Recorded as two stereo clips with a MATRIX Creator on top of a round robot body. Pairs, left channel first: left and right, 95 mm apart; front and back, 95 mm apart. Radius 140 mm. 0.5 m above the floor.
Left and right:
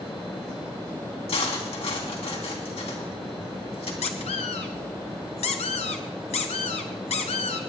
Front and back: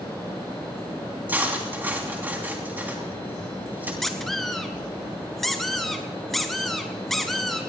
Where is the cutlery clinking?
110° left, 3 m.